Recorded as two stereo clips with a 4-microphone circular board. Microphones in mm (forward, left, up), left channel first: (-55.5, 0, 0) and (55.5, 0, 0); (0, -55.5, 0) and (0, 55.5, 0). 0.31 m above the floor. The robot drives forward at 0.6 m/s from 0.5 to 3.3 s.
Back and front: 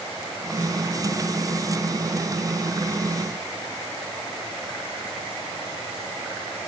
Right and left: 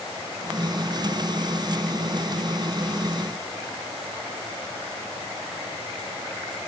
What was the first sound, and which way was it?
Only background noise.